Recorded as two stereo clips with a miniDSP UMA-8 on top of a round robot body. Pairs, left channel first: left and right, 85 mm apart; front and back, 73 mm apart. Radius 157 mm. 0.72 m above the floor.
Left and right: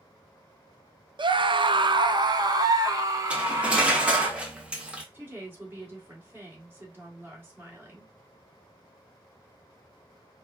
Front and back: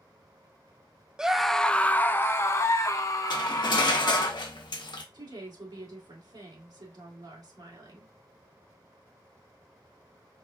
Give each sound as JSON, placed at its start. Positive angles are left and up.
{"t": 1.2, "sound": "a scream", "azimuth_deg": -100, "distance_m": 0.7}
{"t": 3.3, "sound": "cutlery clinking", "azimuth_deg": -15, "distance_m": 1.0}
{"t": 5.1, "sound": "a woman speaking", "azimuth_deg": -160, "distance_m": 2.5}